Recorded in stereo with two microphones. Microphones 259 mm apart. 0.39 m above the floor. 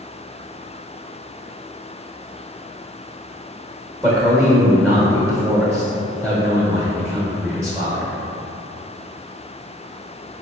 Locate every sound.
4.0 s a man speaking: 10° right (ahead or behind), 0.8 m